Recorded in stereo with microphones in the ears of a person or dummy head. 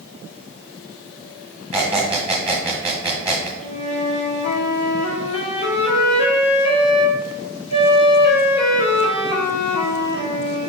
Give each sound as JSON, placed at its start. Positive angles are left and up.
{"t": 1.7, "sound": "a squeak", "side_deg": -10, "distance_m": 0.7}
{"t": 3.6, "sound": "a flute", "side_deg": 40, "distance_m": 0.9}